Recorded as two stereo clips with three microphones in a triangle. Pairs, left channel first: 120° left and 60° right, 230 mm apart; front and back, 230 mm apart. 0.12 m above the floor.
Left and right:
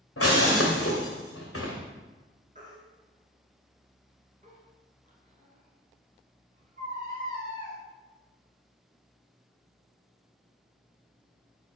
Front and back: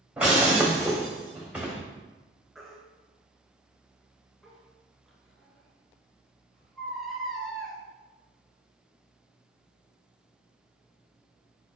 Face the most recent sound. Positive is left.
turn(degrees=-90)